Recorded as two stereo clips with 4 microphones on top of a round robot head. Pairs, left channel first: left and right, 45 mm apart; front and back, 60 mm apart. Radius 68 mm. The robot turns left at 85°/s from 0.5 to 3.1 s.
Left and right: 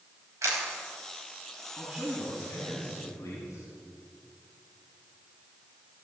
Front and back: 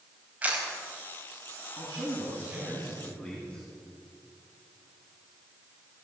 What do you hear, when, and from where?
0.4 s a camera shutter: 110° right, 4.5 m; by 0.7 s 120° right, 4.5 m
1.8 s a man speaking: 170° right, 8 m; by 3.7 s 75° left, 8 m